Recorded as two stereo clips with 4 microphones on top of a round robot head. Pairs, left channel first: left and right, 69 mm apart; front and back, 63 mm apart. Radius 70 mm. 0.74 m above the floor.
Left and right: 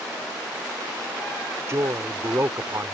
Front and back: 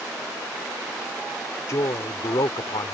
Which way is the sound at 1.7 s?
40° right.